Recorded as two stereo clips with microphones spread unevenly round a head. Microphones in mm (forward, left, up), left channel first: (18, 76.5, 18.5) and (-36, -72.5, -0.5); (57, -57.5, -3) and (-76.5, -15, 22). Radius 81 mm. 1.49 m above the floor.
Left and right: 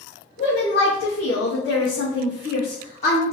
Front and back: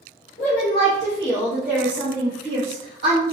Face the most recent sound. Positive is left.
turn(degrees=125)